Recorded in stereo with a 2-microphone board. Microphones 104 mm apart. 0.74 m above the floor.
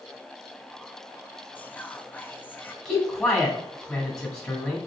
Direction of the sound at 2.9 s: 10° left (ahead or behind).